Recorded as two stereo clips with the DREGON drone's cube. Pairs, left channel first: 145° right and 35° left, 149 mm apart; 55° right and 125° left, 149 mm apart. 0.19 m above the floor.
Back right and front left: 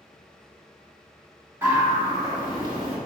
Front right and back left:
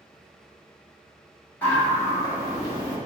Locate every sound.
1.6 s a scream: 5° right, 1.2 m